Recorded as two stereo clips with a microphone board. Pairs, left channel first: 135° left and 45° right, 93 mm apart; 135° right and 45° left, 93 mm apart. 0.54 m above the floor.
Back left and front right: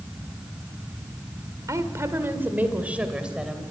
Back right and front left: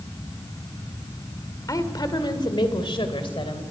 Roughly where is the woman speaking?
Right.